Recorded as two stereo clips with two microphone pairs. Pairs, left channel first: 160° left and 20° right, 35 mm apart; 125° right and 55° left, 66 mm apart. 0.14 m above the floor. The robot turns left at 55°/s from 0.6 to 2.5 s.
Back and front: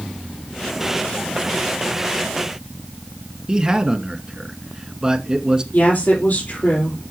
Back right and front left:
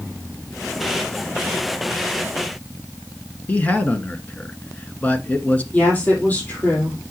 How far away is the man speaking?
About 1.4 m.